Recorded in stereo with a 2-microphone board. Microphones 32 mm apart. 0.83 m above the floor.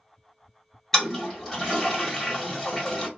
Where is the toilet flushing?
15° left (ahead or behind), 1.5 m.